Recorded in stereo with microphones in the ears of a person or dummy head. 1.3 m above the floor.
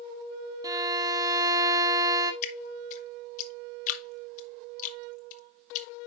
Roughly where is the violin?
Centre.